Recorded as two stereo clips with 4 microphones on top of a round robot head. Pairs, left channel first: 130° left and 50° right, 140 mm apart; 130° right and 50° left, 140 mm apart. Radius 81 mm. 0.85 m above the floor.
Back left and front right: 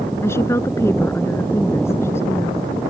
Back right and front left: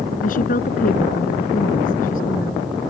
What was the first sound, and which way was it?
A woman speaking, 160° right.